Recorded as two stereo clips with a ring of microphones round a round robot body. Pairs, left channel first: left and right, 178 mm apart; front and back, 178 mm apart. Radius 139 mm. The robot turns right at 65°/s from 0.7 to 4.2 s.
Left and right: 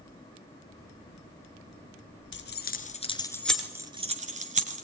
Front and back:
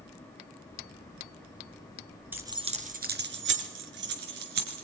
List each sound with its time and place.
2.3 s keys jangling: 100° left, 4 m; by 4.8 s 140° right, 4 m